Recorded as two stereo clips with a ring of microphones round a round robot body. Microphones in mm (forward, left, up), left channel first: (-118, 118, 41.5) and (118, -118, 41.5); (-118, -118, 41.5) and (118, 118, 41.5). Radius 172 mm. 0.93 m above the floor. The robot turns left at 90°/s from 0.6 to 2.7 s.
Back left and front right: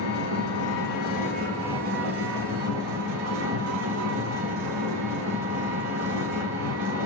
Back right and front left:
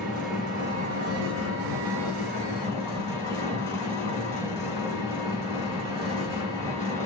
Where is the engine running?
135° left, 3 m; by 7.1 s 55° right, 3 m.